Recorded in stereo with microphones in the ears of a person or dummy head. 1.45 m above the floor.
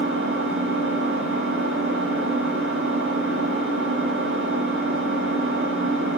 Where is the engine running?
70° right (ahead or behind), 2.5 m.